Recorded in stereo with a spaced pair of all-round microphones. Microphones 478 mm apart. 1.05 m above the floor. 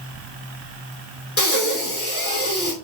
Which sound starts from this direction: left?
Breathing, at 1.4 s.